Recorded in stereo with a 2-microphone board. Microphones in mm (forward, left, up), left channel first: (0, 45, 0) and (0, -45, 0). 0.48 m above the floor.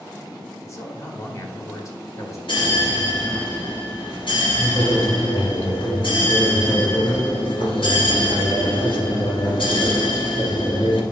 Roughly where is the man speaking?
Left.